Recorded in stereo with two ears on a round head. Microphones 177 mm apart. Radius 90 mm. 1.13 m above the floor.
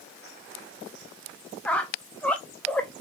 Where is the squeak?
5° left (ahead or behind), 0.5 m.